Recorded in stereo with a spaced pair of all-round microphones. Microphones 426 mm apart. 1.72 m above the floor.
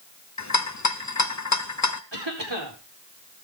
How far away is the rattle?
About 0.8 m.